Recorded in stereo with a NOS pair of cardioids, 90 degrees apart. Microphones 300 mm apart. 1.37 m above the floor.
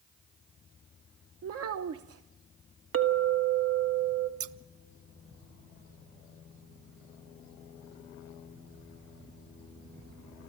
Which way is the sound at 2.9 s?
50° right.